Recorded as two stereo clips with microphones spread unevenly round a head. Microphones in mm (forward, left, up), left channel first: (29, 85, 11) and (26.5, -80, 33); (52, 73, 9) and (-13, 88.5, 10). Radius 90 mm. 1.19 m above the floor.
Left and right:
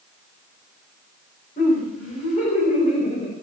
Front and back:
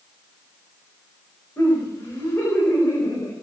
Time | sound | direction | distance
1.6 | laughter | 45° left | 5 m